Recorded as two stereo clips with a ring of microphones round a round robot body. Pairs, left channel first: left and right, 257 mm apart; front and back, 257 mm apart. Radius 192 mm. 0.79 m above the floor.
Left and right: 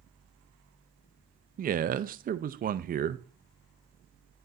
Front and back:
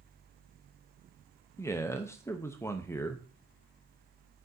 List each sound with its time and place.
1.6 s a man speaking: 70° right, 0.5 m